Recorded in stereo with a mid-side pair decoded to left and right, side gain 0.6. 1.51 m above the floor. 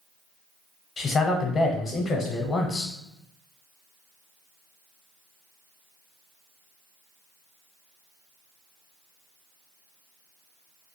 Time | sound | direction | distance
1.0 | a man speaking | 30° left | 0.6 m